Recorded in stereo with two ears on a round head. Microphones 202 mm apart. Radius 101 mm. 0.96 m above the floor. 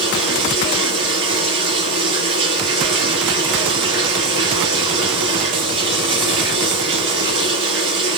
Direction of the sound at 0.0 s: 65° right (ahead or behind).